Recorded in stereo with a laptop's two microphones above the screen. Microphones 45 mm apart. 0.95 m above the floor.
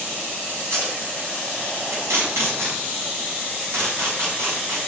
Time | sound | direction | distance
0.6 | tape being pulled | 85° right | 6 m